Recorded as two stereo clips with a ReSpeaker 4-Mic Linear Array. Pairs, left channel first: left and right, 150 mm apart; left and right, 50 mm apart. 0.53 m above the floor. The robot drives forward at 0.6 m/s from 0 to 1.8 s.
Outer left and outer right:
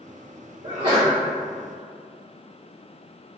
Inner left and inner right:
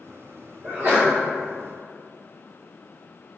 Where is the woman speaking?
I don't hear a woman speaking.